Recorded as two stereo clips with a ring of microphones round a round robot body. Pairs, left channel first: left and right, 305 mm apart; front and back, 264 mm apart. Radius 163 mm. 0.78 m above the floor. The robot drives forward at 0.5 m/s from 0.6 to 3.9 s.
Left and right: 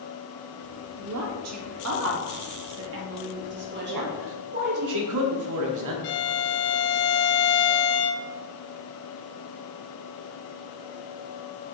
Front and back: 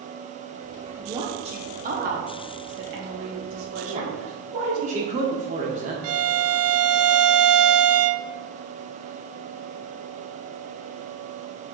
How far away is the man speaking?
About 1.6 m.